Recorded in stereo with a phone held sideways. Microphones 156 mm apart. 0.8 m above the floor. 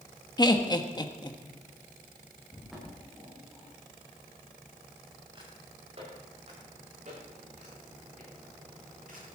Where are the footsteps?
Centre (ahead or behind), 7 m; by 9.3 s 65° right (ahead or behind), 11.5 m.